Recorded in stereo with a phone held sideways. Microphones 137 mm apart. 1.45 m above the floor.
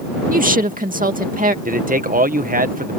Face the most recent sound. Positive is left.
turn(degrees=-75)  # may be behind; listen again after turning